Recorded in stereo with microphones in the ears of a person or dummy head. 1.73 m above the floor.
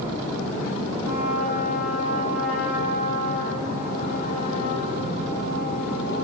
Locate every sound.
1.0 s a trumpet: 50° right (ahead or behind), 8 m